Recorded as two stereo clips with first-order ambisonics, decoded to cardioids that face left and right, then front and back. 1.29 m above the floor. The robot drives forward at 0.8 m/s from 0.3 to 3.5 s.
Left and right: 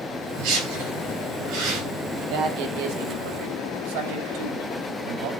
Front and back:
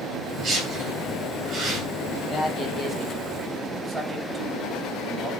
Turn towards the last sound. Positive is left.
turn(degrees=-115)